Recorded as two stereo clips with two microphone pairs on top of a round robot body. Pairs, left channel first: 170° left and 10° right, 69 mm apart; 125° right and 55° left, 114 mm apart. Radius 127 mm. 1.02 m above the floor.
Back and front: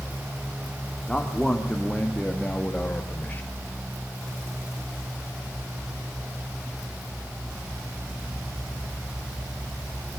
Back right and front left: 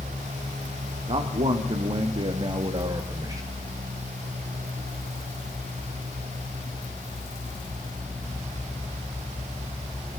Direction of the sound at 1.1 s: 85° left.